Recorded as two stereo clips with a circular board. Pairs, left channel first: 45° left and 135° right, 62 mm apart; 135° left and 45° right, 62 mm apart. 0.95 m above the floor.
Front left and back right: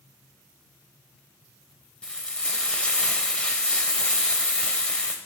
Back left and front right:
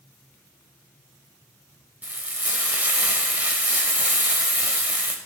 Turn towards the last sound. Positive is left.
turn(degrees=-10)